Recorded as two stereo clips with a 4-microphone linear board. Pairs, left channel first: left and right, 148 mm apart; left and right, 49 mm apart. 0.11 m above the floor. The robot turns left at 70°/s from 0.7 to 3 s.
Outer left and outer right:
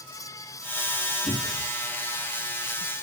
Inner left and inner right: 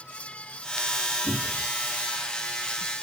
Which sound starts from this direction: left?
A cupboard door, at 1.3 s.